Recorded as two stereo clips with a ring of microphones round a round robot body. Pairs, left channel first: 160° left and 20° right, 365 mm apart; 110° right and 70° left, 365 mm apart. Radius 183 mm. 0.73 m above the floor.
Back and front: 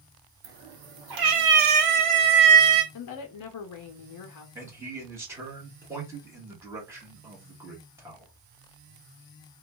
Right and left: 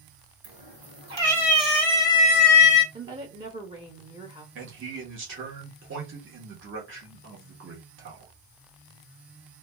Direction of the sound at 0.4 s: Straight ahead.